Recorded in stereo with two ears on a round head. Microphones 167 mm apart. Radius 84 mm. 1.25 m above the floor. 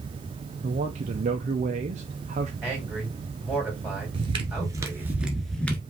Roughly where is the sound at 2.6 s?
Centre.